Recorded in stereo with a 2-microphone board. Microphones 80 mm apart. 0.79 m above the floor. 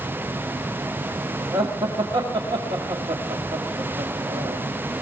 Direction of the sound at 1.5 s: 65° right (ahead or behind).